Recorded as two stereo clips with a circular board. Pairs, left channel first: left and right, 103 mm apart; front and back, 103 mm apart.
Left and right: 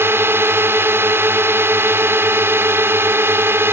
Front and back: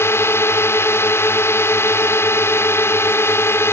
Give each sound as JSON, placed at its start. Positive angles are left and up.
{"t": 0.0, "sound": "a drone", "azimuth_deg": -45}